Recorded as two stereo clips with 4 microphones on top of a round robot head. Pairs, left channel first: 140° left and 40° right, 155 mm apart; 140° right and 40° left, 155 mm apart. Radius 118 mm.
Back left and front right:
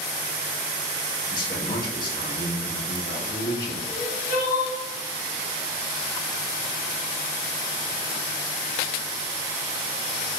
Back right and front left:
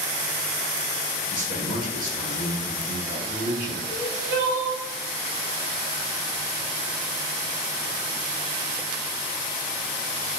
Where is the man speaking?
75° left, 1.6 m.